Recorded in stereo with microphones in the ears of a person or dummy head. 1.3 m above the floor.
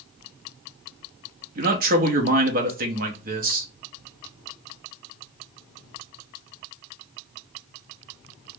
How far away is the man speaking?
About 0.8 m.